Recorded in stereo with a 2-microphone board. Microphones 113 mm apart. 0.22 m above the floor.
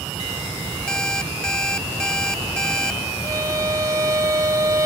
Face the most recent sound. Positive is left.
turn(degrees=-30)  # may be behind; listen again after turning